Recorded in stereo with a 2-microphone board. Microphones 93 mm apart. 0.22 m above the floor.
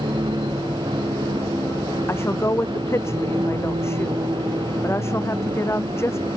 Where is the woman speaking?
30° left (ahead or behind).